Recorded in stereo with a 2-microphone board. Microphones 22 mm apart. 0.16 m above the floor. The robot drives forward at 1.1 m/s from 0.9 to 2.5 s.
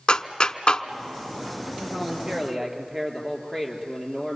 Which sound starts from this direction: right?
A man speaking, at 1.8 s.